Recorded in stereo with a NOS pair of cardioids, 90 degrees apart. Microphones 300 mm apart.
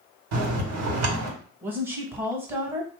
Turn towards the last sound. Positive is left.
turn(degrees=-5)